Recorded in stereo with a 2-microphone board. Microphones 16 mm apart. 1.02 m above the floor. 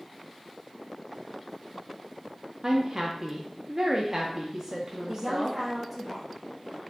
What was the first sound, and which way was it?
A woman speaking, 30° right (ahead or behind).